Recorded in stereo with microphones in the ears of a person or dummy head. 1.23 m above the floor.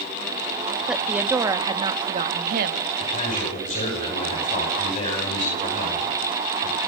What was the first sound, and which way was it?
A woman speaking, centre (ahead or behind).